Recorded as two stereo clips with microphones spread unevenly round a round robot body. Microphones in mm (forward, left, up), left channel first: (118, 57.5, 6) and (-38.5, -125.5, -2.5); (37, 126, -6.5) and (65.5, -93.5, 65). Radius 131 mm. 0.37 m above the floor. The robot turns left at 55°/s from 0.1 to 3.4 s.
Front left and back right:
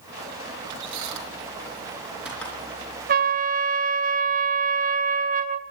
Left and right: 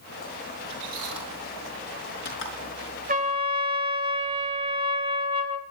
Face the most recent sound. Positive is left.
turn(degrees=-160)